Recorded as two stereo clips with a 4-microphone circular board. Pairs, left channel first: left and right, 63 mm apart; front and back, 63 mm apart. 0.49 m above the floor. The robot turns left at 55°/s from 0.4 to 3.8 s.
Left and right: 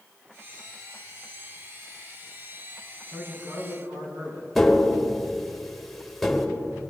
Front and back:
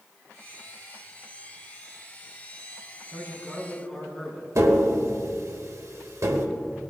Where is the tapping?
175° left, 1.4 m.